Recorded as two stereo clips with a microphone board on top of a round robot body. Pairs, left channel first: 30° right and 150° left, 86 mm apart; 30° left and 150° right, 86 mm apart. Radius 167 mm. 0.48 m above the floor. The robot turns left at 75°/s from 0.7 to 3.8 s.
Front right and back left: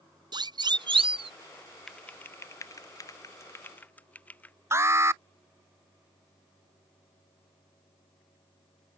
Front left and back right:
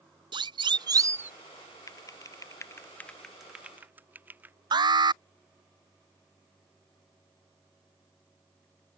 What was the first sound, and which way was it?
A siren, 175° right.